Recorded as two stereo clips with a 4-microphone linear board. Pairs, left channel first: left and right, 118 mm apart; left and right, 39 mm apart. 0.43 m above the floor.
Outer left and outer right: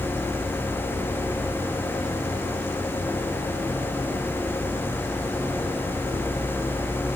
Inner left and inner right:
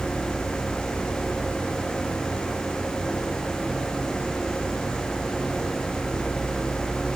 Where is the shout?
No shout in this recording.